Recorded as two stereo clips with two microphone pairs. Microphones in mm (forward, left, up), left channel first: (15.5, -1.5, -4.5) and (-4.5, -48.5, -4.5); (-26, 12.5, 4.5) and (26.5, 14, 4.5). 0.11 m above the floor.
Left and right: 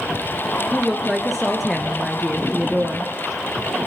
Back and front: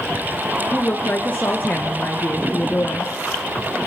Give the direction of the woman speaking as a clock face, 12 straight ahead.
7 o'clock.